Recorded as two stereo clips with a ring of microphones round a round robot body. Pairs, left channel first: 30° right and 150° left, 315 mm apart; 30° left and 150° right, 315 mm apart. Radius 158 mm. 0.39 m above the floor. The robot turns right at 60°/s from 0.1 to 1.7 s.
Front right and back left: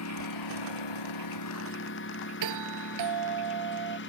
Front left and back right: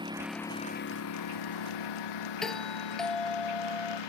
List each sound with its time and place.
0.0 s a lawn mower: 75° right; by 4.1 s 25° left
2.4 s a doorbell: 120° left